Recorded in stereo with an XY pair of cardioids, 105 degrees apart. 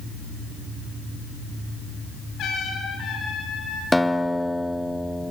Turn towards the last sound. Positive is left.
turn(degrees=5)